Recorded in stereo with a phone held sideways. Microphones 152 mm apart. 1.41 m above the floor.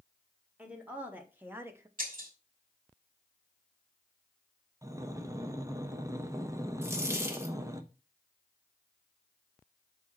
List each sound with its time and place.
0.6 s a woman speaking: 10° right (ahead or behind), 2 m; by 1.9 s 20° right (ahead or behind), 1.0 m
2.0 s breaking glass: 65° right (ahead or behind), 3 m
4.8 s breathing: 20° right (ahead or behind), 0.9 m
6.8 s a dropped coin: 15° right (ahead or behind), 1.3 m